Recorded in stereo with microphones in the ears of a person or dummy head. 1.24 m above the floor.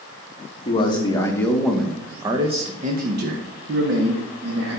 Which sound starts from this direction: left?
A man speaking, at 0.7 s.